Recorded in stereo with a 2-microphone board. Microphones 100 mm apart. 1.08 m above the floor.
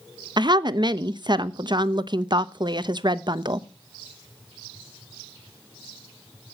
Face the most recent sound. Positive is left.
turn(degrees=-50)  # may be behind; listen again after turning